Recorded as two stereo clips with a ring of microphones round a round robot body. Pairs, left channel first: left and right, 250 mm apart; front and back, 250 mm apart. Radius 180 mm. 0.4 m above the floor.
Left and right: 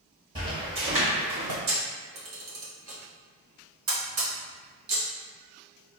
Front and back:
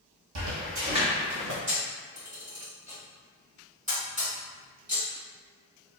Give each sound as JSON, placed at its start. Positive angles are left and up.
{"t": 0.3, "sound": "footsteps", "azimuth_deg": -165, "distance_m": 0.9}
{"t": 1.7, "sound": "a camera shutter", "azimuth_deg": -120, "distance_m": 1.0}